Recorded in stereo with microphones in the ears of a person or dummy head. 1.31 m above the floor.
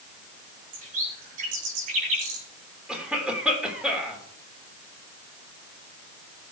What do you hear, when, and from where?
0.7 s a bird: 40° right (ahead or behind), 2.5 m
2.9 s a cough: 5° right (ahead or behind), 3 m